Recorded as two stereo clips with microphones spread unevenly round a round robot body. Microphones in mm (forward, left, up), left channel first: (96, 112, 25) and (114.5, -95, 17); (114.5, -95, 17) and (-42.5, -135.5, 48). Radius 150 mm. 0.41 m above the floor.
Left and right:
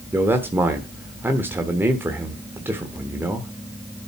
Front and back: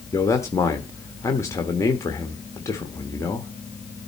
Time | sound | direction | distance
0.1 | a man speaking | 15° right | 1.2 m